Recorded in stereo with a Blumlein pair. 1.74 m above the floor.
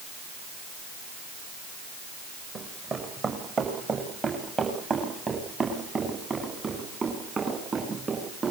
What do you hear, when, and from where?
2.5 s running footsteps: 20° right, 8 m